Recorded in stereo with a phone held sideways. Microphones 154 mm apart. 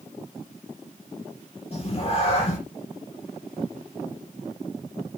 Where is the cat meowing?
40° left (ahead or behind), 4.5 m.